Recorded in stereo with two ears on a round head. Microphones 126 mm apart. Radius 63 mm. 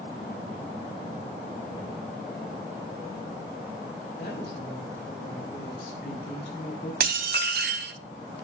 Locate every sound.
4.2 s a woman speaking: 75° left (ahead or behind), 5 m; by 6.9 s 80° left, 6.5 m
7.0 s dishes clattering: 75° right (ahead or behind), 1.2 m